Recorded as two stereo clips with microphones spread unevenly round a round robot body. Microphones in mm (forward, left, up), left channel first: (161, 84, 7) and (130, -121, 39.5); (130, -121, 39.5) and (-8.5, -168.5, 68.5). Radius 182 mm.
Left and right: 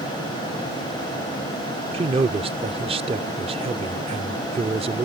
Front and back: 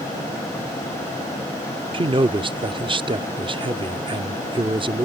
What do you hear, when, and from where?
1.9 s a man speaking: 140° right